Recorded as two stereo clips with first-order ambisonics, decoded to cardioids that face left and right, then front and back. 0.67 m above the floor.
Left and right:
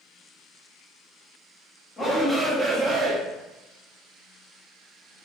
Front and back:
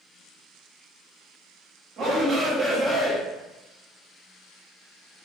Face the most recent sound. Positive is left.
turn(degrees=-80)